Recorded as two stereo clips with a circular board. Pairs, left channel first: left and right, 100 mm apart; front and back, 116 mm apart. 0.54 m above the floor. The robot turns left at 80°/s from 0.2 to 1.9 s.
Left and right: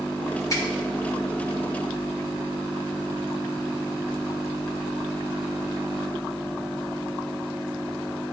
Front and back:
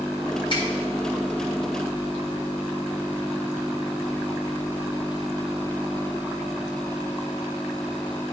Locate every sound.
0.5 s a finger snap: 40° left, 2.5 m; by 0.7 s 25° left, 2.5 m